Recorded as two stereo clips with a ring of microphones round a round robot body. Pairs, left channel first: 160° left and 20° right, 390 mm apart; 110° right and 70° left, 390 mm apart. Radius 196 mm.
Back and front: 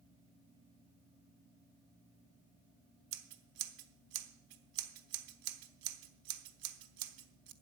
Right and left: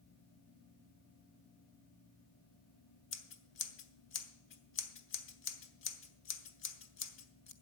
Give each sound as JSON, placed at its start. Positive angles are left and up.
{"t": 3.1, "sound": "scissors", "azimuth_deg": -55, "distance_m": 1.0}